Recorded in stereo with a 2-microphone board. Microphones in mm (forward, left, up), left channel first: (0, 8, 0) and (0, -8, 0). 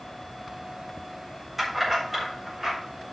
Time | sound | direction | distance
1.6 | keys jangling | 20° right (ahead or behind) | 4 m